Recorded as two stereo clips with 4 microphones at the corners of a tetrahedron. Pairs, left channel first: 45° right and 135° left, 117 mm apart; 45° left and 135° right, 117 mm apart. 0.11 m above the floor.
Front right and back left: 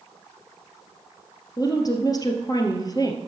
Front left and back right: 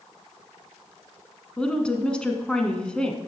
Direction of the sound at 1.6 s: 35° right.